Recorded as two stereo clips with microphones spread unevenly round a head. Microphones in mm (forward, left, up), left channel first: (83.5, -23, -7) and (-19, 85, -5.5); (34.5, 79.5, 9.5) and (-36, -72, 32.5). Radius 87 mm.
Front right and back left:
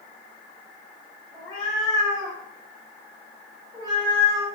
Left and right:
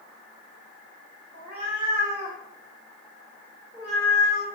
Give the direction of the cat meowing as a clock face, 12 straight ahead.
4 o'clock.